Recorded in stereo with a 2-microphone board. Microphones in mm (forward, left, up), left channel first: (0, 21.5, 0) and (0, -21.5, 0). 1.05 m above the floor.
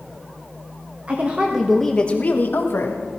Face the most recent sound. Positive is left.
turn(degrees=70)  # may be behind; listen again after turning